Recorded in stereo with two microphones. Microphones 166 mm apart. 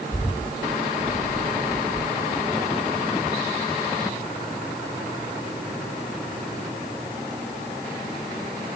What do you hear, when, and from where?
0.1 s a bird: 5° right (ahead or behind), 7 m